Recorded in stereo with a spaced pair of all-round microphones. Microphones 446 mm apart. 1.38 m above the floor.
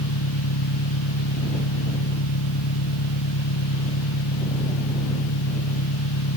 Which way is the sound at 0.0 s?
80° left.